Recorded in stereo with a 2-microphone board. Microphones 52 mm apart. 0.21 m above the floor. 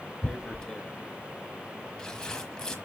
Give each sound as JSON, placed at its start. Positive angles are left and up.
{"t": 0.2, "sound": "tearing paper", "side_deg": 15, "distance_m": 1.1}